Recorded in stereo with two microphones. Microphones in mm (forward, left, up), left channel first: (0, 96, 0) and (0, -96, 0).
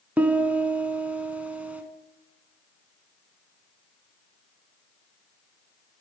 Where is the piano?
5° right (ahead or behind), 0.7 m.